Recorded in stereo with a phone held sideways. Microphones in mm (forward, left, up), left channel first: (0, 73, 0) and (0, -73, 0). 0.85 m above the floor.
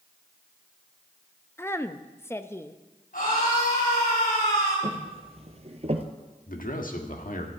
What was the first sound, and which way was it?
A woman speaking, 15° left (ahead or behind).